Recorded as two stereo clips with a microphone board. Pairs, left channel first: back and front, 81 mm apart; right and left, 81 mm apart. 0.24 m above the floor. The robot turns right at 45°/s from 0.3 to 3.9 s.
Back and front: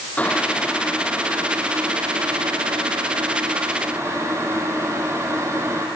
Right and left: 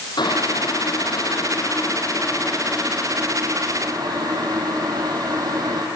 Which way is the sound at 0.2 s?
110° right.